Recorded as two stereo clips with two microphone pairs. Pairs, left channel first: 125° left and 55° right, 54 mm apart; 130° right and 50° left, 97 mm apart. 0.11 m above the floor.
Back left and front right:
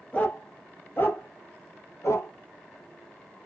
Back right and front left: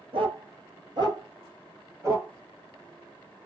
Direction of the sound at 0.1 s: 60° left.